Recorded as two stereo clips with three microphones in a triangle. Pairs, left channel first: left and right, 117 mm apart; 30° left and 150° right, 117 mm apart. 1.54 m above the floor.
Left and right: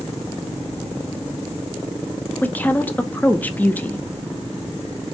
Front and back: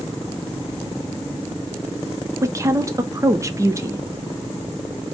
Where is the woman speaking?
160° left, 0.5 m.